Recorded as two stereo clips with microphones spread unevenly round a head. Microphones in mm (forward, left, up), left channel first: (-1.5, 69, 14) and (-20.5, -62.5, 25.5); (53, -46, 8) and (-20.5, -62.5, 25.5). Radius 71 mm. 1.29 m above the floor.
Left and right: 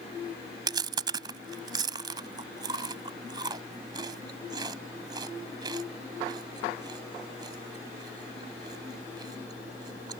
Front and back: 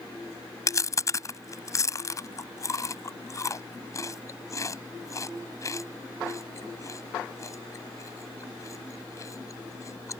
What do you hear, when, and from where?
0.7 s chewing: 40° right